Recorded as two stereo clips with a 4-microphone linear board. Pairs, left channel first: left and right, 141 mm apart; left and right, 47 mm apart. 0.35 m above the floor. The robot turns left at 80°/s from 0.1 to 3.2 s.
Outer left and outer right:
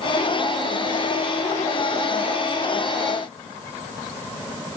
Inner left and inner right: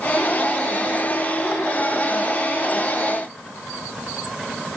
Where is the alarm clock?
No alarm clock in this recording.